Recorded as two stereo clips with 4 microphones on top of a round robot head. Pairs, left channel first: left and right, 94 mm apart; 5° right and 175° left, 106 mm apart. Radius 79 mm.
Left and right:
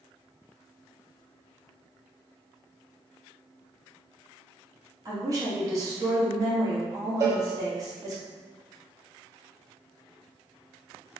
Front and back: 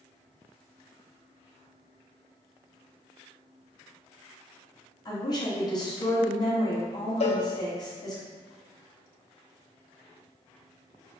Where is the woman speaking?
45° right, 1.2 m.